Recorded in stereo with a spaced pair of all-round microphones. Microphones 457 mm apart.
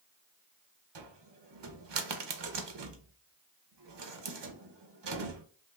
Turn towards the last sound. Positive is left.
turn(degrees=-65)  # may be behind; listen again after turning